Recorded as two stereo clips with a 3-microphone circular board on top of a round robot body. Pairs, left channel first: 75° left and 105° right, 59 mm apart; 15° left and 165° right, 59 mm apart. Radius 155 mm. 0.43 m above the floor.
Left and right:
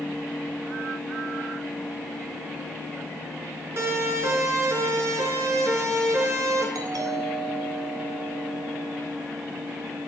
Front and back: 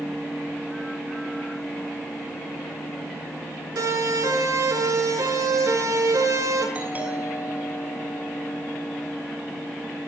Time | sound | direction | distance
3.8 | a siren | 150° right | 8.5 m
6.8 | a doorbell | 100° right | 7.5 m